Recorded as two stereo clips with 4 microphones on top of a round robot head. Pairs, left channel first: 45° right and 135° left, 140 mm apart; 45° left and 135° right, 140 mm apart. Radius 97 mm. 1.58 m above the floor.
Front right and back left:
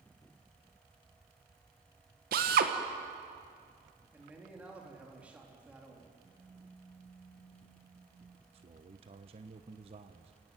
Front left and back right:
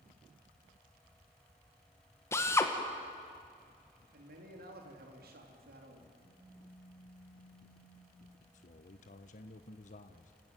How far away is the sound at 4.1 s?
About 4 m.